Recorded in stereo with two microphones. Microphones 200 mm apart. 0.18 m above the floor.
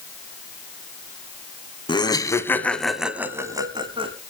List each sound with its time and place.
1.9 s laughter: 25° left (ahead or behind), 1.7 m; by 4.1 s 30° right (ahead or behind), 1.7 m